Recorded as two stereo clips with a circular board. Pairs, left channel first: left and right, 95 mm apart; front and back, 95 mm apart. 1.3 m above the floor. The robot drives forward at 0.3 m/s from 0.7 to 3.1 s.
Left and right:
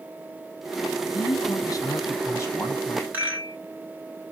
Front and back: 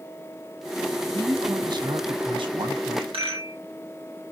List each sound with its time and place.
1.1 s a man speaking: 130° left, 0.6 m; by 3.0 s 155° left, 1.1 m
3.1 s a rattle: 160° right, 1.3 m